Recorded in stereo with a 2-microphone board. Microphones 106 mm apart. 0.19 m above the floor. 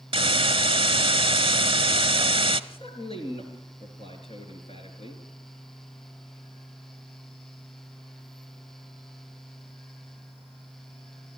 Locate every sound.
0.1 s a hiss: 55° right (ahead or behind), 0.7 m
2.7 s a man speaking: 65° left (ahead or behind), 4 m